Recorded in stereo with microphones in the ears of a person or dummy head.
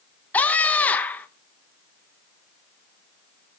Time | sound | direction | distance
0.3 | a scream | 10° left (ahead or behind) | 1.2 m